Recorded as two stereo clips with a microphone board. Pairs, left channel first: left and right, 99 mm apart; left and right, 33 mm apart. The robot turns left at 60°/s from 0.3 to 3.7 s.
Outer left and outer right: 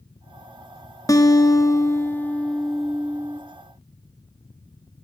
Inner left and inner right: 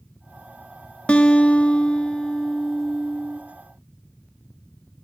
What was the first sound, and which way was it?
A guitar, 100° left.